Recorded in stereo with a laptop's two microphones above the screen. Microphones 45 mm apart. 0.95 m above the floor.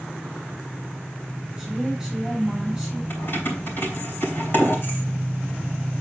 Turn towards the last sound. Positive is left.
turn(degrees=45)  # may be behind; listen again after turning